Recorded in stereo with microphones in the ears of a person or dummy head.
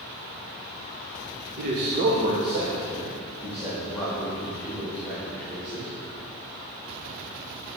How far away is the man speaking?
About 0.9 m.